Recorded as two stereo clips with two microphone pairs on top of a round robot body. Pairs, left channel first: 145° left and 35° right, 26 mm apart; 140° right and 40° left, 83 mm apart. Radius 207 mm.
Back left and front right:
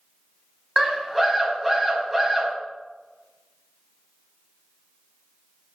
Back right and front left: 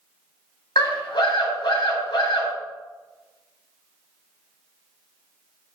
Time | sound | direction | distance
0.8 | a scream | 120° right | 2 m